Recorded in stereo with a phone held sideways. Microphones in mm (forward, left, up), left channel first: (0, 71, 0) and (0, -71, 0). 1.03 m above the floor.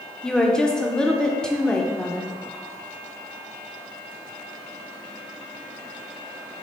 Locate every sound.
0.2 s a woman speaking: 5° left (ahead or behind), 0.8 m